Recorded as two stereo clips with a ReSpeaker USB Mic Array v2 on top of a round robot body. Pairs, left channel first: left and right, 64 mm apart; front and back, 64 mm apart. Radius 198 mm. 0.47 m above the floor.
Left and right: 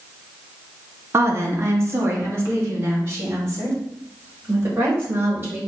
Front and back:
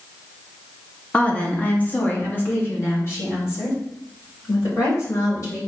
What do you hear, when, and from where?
1.1 s a woman speaking: 65° right, 1.6 m; by 5.6 s 40° right, 4 m